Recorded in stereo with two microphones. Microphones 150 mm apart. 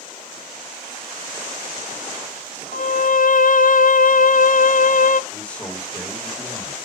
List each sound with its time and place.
2.7 s a violin: 65° left (ahead or behind), 0.6 m
5.3 s a man speaking: 10° left (ahead or behind), 1.6 m